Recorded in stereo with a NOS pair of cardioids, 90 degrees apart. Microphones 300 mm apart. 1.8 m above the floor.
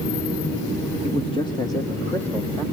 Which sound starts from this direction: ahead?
A man speaking, at 1.0 s.